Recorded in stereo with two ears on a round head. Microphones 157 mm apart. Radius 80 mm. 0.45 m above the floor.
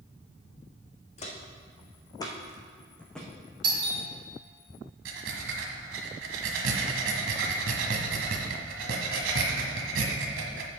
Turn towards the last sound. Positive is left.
turn(degrees=-80)